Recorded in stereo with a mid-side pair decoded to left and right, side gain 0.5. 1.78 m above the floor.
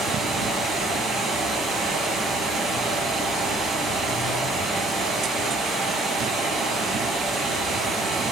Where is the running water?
60° right, 1.6 m.